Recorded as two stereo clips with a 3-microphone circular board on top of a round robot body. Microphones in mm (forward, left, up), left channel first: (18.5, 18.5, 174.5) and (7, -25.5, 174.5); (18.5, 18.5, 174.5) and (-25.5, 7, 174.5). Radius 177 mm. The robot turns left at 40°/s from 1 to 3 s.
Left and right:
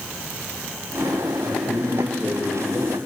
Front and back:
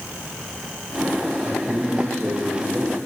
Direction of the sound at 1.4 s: 170° left.